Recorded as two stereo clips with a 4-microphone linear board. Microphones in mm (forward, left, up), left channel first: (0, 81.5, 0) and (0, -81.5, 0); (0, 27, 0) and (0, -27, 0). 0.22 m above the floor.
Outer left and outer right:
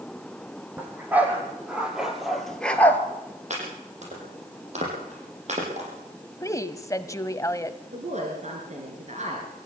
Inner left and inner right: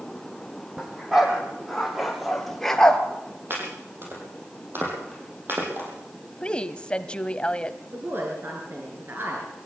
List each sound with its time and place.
0.8 s a dog barking: 10° right (ahead or behind), 4.5 m; by 3.0 s 15° left (ahead or behind), 1.7 m
3.5 s chopping: 45° right (ahead or behind), 7 m
6.4 s a woman speaking: 20° left (ahead or behind), 1.0 m
7.9 s a woman speaking: 45° right (ahead or behind), 4 m